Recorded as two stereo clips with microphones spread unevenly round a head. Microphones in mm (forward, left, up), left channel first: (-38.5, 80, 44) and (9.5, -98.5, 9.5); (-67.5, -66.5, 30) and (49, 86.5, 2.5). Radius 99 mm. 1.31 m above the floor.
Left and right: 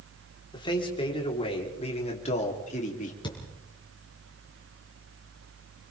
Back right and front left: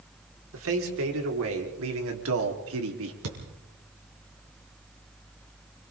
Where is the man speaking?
40° left, 4.5 m; by 3.1 s 50° left, 3 m.